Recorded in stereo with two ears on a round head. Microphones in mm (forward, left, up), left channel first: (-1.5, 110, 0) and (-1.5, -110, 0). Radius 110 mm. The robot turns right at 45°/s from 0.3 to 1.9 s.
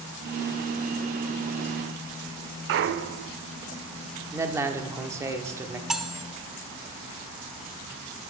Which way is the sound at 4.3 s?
10° right (ahead or behind).